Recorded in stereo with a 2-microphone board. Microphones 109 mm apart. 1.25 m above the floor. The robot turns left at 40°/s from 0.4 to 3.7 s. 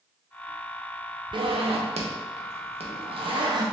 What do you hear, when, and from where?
1.3 s a zipper: 50° right (ahead or behind), 0.6 m; by 3.6 s 35° right (ahead or behind), 0.6 m